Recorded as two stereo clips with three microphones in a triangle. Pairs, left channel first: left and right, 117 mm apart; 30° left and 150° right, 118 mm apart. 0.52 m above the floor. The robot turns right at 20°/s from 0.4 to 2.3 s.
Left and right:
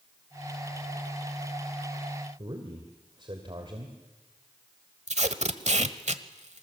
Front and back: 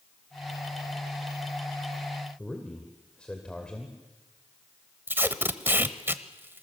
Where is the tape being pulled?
75° right, 1.1 m.